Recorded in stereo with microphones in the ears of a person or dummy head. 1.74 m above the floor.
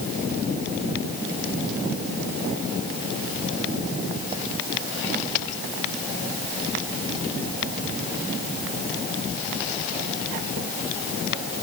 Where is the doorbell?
No doorbell in this recording.